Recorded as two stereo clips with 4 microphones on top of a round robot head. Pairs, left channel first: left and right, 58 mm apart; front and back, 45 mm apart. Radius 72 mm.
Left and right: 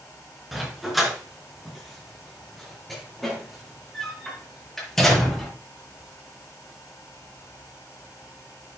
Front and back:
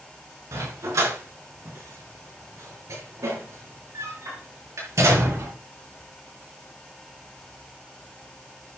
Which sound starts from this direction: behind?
A dog barking, at 0.5 s.